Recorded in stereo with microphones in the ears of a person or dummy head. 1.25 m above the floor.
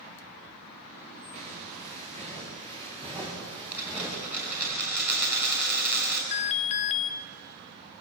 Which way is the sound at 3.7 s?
5° right (ahead or behind).